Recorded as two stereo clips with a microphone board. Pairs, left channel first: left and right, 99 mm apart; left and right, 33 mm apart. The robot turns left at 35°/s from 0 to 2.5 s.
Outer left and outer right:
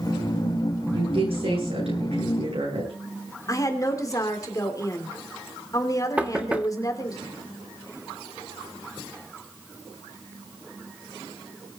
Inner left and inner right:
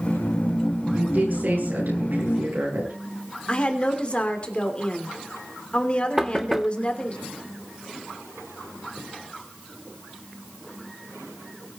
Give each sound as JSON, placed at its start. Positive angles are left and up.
{"t": 0.9, "sound": "a woman speaking", "azimuth_deg": -50, "distance_m": 8.5}
{"t": 3.5, "sound": "a woman speaking", "side_deg": 35, "distance_m": 2.5}
{"t": 6.2, "sound": "knocking", "side_deg": -15, "distance_m": 1.1}